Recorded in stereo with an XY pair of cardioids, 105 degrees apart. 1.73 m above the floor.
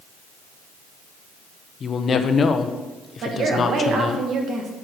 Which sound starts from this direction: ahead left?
A woman speaking, at 1.8 s.